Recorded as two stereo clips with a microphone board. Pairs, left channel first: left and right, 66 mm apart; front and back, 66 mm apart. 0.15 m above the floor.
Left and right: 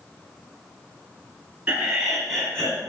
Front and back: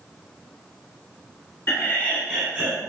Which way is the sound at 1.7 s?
25° right.